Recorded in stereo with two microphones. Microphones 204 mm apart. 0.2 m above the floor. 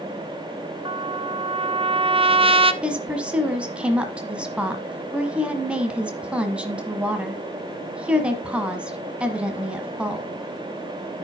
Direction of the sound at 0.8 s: 25° right (ahead or behind).